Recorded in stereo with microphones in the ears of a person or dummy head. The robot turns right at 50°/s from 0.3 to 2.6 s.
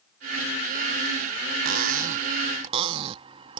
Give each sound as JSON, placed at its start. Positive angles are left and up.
{"t": 1.6, "sound": "cutlery clinking", "azimuth_deg": -90}